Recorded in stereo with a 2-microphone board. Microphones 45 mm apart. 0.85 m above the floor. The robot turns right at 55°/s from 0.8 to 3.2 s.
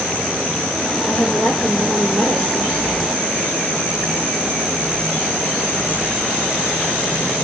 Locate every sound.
1.1 s a woman speaking: 140° left, 3.5 m; by 2.9 s 115° right, 3.5 m